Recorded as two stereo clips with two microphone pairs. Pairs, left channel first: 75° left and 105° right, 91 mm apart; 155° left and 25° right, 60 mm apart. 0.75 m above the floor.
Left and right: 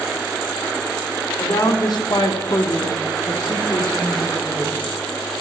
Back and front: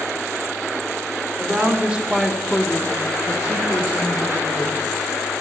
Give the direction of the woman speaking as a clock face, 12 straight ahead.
11 o'clock.